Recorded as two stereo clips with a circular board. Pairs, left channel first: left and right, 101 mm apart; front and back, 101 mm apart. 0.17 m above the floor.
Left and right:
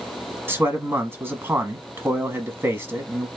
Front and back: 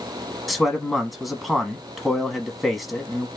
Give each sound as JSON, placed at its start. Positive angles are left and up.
{"t": 0.5, "sound": "a man speaking", "azimuth_deg": -90, "distance_m": 1.1}